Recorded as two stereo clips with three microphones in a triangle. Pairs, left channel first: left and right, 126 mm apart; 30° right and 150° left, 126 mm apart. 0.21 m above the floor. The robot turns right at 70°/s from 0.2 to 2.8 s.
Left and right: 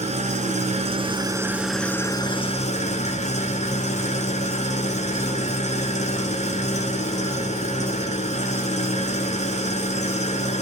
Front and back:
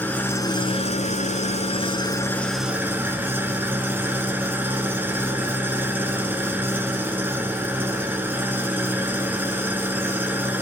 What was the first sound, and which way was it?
An engine running, 105° right.